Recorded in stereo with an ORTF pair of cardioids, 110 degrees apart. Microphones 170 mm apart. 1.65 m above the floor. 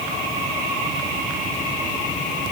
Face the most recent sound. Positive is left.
No sound to turn to.